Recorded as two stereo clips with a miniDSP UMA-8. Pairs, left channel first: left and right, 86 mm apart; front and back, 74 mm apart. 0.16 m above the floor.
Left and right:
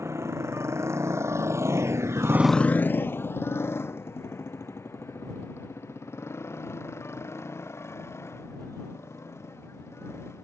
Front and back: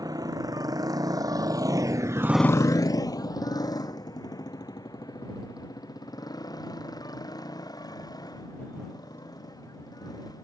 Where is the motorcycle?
145° right; by 10.4 s 30° left.